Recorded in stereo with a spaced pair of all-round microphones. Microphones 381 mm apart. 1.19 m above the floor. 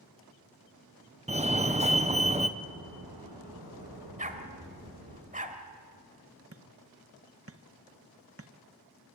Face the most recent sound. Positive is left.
turn(degrees=-35)  # may be behind; listen again after turning